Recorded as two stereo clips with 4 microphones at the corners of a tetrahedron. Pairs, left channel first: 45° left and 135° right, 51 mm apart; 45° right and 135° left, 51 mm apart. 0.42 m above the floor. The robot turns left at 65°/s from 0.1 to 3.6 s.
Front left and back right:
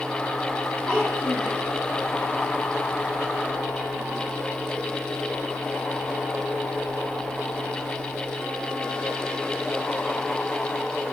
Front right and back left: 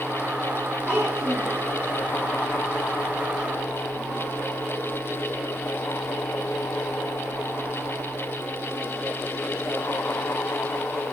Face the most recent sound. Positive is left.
turn(degrees=-105)